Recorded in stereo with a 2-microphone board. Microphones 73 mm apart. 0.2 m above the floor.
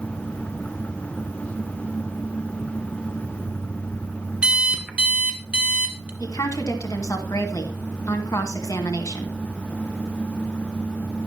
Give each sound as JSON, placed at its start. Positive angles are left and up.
{"t": 4.4, "sound": "an alarm clock", "side_deg": -15, "distance_m": 1.4}
{"t": 6.2, "sound": "a woman speaking", "side_deg": 50, "distance_m": 2.0}